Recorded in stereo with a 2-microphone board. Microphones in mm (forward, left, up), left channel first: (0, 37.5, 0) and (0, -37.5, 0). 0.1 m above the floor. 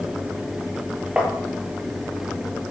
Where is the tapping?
10° right (ahead or behind), 2.5 m.